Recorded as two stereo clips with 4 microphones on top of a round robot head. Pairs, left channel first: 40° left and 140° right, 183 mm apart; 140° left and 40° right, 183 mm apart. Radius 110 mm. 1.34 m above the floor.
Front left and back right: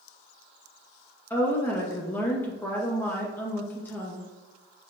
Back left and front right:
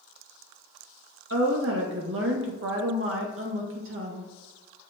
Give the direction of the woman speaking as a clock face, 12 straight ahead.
1 o'clock.